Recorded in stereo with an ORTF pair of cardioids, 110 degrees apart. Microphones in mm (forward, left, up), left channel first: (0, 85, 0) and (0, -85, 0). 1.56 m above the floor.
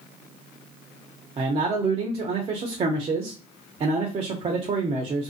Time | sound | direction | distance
1.4 | a man speaking | 35° right | 0.7 m